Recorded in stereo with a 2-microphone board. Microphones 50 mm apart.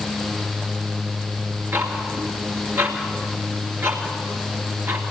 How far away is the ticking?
About 2.5 m.